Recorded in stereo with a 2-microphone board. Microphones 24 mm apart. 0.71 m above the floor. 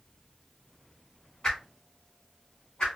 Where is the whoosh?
35° left (ahead or behind), 1.1 m.